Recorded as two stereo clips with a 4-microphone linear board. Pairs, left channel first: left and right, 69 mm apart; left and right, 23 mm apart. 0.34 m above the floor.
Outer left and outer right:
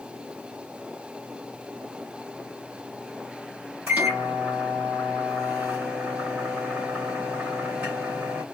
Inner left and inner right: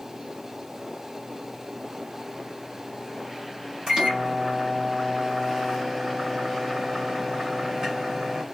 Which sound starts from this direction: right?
A microwave, at 3.9 s.